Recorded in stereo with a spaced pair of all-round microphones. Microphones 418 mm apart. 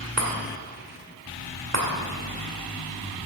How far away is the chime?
About 2 m.